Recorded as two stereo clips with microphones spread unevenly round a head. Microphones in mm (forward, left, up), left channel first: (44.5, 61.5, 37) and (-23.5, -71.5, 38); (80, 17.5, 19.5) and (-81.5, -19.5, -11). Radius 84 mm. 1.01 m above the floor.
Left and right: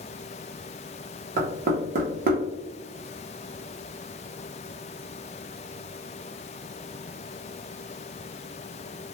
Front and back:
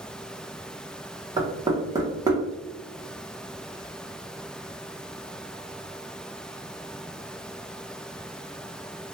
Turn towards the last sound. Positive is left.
turn(degrees=-110)